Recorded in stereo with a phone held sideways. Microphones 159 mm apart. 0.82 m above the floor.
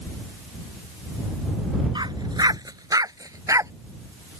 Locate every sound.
1.9 s a dog barking: 30° right (ahead or behind); by 3.7 s 20° right (ahead or behind)